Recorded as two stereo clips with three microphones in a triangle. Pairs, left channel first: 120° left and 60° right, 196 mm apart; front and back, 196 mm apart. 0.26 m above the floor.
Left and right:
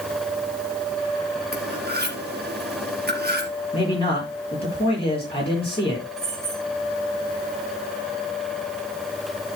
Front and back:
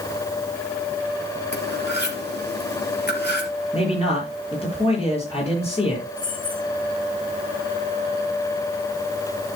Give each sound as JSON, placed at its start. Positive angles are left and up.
{"t": 1.5, "sound": "cutlery clinking", "azimuth_deg": -25, "distance_m": 3.5}
{"t": 3.7, "sound": "a man speaking", "azimuth_deg": 60, "distance_m": 6.0}
{"t": 6.2, "sound": "keys jangling", "azimuth_deg": 45, "distance_m": 9.5}